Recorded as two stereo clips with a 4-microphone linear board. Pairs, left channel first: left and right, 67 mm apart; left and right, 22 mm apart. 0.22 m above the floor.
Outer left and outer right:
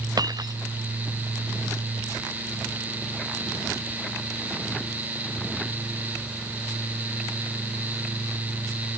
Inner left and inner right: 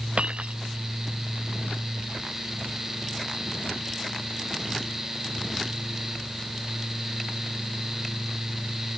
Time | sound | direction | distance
0.2 | breaking glass | 70° right (ahead or behind) | ?